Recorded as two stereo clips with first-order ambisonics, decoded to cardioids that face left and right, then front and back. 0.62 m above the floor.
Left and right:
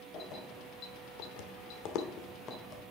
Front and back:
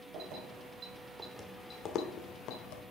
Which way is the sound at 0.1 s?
145° left.